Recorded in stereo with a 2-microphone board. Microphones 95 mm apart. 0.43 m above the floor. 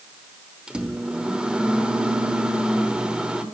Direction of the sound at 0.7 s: 10° right (ahead or behind).